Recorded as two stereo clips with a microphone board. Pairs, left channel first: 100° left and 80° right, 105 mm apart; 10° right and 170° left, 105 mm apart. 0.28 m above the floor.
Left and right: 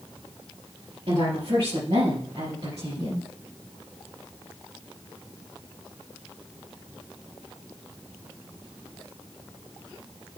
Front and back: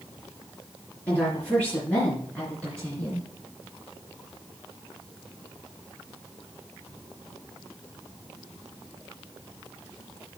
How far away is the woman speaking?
About 4 m.